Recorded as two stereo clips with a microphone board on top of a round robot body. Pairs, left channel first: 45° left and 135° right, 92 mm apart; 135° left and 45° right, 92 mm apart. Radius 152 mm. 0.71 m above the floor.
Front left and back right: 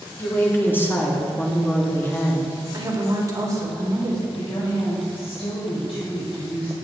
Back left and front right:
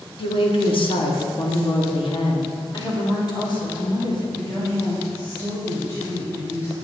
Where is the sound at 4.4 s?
70° left, 3.5 m.